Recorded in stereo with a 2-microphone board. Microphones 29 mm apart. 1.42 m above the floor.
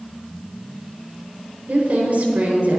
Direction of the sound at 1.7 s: 65° right (ahead or behind).